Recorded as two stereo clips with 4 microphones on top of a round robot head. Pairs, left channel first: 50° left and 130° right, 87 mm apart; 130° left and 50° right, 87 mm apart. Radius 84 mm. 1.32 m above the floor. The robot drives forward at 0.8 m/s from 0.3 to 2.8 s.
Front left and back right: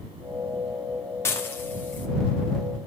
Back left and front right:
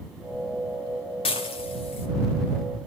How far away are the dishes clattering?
About 2.5 m.